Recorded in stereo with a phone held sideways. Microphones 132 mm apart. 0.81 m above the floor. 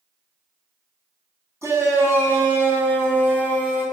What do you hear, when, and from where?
1.6 s a shout: 20° right (ahead or behind), 8 m; by 3.9 s 10° right (ahead or behind), 8.5 m